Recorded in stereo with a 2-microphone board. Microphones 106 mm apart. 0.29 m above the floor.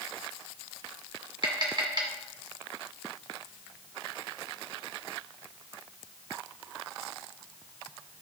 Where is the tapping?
45° right (ahead or behind), 1.7 m.